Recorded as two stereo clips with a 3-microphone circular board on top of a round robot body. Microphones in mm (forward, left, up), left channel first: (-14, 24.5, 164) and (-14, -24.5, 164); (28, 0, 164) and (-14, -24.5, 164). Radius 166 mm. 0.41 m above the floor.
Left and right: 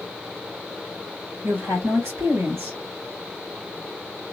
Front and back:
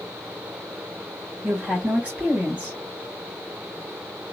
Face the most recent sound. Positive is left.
turn(degrees=-90)